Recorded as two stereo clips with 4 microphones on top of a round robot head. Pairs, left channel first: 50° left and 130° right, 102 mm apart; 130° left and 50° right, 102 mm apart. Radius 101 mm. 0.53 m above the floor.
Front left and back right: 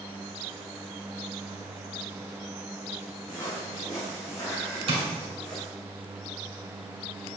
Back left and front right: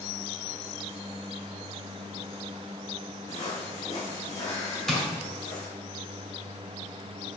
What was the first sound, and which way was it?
Footsteps, 110° left.